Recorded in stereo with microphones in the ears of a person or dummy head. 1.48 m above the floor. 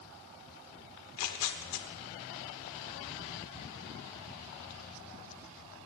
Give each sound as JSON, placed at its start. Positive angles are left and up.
{"t": 1.0, "sound": "tearing paper", "side_deg": 75, "distance_m": 0.6}